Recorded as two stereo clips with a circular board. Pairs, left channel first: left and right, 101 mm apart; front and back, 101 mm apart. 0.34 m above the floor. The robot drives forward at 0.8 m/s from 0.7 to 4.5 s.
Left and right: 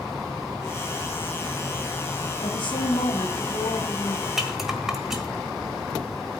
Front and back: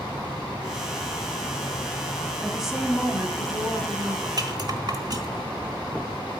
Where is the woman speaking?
85° left, 1.9 m; by 4.3 s 130° left, 2.5 m.